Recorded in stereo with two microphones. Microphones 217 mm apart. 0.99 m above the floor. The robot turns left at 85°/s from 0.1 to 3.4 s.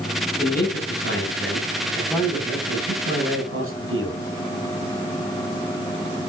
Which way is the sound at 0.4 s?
150° left.